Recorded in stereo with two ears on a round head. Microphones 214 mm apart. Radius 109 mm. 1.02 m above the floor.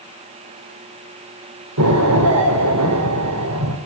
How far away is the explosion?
About 4.5 m.